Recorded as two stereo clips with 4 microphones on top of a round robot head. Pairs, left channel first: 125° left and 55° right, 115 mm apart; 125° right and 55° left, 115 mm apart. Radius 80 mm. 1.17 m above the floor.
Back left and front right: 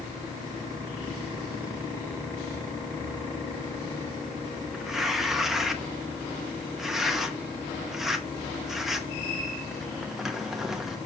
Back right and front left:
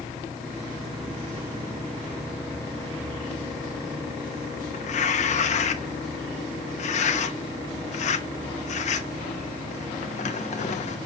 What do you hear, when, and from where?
4.7 s tearing paper: 140° right, 1.0 m